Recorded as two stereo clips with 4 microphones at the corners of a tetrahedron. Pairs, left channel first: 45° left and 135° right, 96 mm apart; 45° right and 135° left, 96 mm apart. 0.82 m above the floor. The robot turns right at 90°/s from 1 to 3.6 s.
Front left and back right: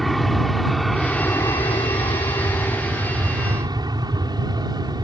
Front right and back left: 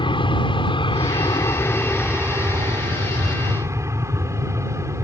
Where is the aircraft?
45° right; by 5.0 s 170° right.